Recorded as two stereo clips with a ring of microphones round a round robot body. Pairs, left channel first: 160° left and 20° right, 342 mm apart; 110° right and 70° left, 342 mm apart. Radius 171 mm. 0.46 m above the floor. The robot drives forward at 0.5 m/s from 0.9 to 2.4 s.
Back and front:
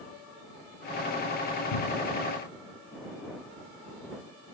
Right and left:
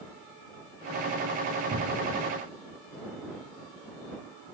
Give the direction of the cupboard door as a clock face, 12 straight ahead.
8 o'clock.